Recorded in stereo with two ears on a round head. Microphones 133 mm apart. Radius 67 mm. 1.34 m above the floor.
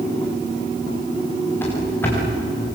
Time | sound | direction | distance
1.6 | running footsteps | 15° left (ahead or behind) | 8 m